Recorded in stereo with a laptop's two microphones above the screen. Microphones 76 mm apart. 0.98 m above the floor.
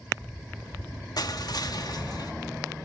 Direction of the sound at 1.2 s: 55° left (ahead or behind).